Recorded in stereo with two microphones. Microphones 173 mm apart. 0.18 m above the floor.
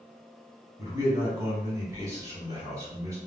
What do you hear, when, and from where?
0.8 s a man speaking: 20° right (ahead or behind), 1.2 m